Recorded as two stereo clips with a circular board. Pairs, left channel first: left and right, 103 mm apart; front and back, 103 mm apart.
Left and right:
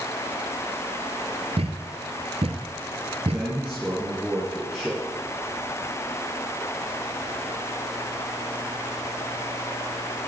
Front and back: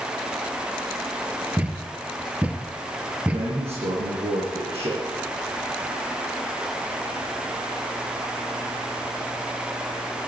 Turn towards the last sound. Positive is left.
turn(degrees=-175)